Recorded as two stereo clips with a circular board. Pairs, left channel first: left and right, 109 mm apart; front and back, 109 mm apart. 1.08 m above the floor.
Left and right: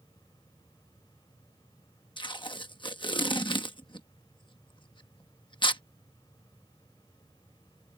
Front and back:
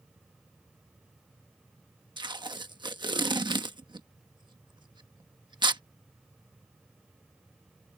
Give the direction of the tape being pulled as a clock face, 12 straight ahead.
8 o'clock.